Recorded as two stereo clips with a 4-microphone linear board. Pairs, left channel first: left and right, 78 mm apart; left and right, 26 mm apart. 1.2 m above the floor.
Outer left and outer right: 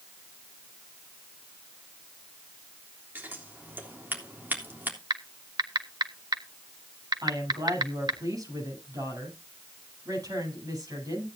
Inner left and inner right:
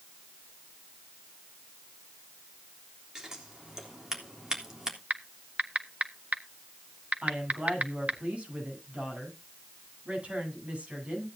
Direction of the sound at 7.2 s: 50° right (ahead or behind).